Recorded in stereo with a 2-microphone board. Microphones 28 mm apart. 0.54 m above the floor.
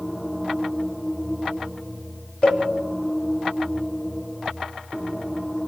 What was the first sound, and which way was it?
A cowbell, 45° left (ahead or behind).